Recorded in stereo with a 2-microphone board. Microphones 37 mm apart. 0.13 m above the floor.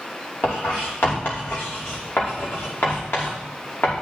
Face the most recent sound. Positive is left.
turn(degrees=70)  # may be behind; listen again after turning